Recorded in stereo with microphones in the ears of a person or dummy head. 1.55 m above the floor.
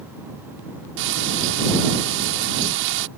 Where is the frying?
70° right (ahead or behind).